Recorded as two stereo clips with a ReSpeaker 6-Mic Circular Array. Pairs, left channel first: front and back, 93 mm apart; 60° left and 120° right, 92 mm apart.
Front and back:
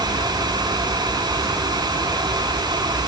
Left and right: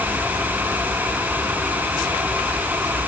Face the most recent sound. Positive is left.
No sound to turn to.